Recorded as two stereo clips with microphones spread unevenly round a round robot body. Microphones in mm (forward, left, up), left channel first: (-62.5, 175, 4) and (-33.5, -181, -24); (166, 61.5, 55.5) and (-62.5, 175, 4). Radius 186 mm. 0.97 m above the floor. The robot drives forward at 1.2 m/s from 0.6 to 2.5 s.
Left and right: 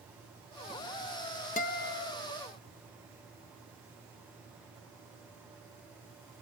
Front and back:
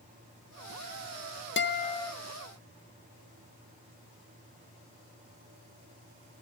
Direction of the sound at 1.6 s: 25° left.